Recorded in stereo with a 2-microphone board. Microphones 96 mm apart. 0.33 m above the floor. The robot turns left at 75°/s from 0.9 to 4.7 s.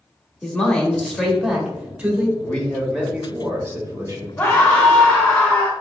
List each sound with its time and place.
0.4 s a man speaking: 10° left (ahead or behind), 0.9 m; by 2.3 s 20° right (ahead or behind), 0.9 m
2.4 s a man speaking: 15° left (ahead or behind), 0.9 m; by 4.3 s 30° right (ahead or behind), 0.9 m
4.4 s a scream: 20° left (ahead or behind), 1.3 m; by 5.7 s 15° left (ahead or behind), 1.3 m